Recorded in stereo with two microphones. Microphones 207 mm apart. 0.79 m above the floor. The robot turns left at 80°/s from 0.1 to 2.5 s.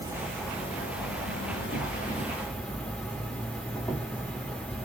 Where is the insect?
165° right, 1.0 m; by 4.8 s 5° left, 1.0 m.